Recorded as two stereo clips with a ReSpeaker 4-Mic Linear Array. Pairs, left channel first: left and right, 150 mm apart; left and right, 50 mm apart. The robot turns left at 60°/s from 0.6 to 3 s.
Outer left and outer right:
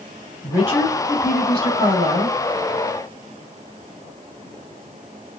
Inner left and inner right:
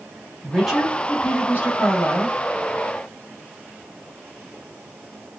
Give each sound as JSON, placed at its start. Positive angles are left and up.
{"t": 0.4, "sound": "a woman speaking", "azimuth_deg": -160, "distance_m": 2.5}